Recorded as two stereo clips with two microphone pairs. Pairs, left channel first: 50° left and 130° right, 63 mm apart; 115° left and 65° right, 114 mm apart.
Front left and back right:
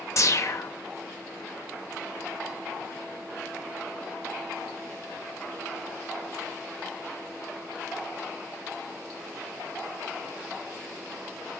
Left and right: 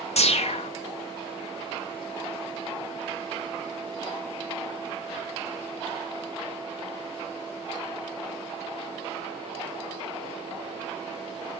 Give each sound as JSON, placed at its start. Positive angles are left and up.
{"t": 0.2, "sound": "a whoosh", "azimuth_deg": 90, "distance_m": 1.3}